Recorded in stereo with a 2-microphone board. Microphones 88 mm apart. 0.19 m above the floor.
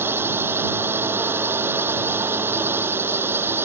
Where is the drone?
25° right (ahead or behind).